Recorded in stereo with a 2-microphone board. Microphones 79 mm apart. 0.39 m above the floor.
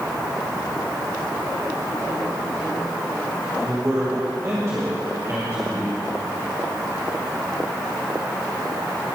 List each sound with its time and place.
3.6 s a man speaking: 40° right (ahead or behind), 2.5 m